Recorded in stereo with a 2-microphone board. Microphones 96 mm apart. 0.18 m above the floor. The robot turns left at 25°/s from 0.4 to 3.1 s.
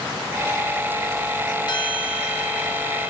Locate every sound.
1.7 s a bell: 125° left, 3.5 m; by 3.1 s 90° left, 3.5 m